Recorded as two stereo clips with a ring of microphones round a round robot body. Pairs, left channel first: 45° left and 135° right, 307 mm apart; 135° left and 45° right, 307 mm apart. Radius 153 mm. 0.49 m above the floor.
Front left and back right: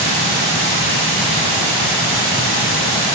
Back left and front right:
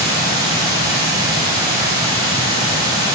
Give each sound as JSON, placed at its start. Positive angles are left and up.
{"t": 0.0, "sound": "running water", "azimuth_deg": -125, "distance_m": 2.5}